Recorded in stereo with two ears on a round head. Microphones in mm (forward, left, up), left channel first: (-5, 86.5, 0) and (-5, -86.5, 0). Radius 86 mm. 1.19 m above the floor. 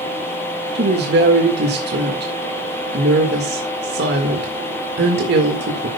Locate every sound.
0.8 s a woman speaking: 65° right (ahead or behind), 1.8 m